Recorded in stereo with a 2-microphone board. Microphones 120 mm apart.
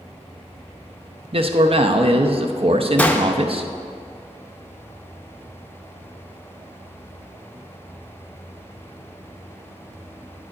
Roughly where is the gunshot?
Centre.